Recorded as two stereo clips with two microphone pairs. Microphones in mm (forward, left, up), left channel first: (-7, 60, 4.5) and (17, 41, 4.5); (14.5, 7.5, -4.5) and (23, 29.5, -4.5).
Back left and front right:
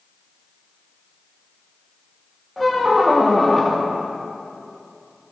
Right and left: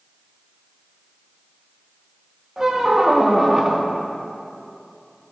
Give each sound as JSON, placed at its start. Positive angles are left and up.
{"t": 2.6, "sound": "a squeak", "azimuth_deg": 60, "distance_m": 1.0}